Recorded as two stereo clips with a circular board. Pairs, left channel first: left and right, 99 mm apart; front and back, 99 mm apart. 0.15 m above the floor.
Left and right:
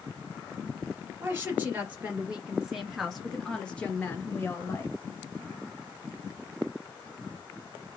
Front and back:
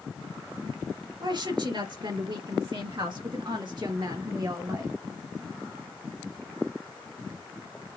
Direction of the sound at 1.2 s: 155° right.